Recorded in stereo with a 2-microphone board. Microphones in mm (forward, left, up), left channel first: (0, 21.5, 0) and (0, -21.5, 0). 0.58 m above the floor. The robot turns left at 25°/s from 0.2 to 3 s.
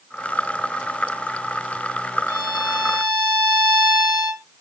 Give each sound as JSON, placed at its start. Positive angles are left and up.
{"t": 2.3, "sound": "a violin", "side_deg": -45, "distance_m": 1.4}